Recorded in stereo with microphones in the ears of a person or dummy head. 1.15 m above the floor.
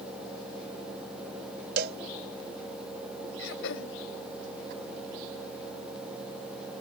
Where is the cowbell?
55° right (ahead or behind).